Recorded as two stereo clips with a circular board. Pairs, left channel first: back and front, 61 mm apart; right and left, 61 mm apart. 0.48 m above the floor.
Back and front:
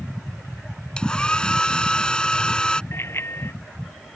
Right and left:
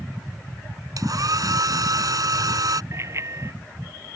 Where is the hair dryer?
105° left.